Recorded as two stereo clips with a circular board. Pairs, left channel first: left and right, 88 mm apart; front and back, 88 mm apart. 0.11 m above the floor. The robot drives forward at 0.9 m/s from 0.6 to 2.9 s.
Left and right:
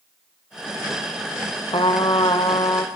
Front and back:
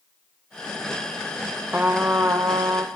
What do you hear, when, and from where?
1.7 s a trumpet: 105° left, 1.9 m; by 2.9 s 130° left, 2.5 m